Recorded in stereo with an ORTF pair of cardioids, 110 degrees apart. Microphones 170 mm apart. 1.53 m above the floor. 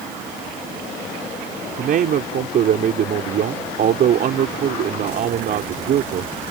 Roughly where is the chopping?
I don't hear chopping.